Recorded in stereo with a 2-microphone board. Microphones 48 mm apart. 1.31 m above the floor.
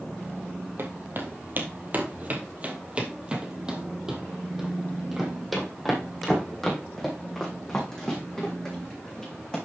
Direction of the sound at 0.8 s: 50° right (ahead or behind).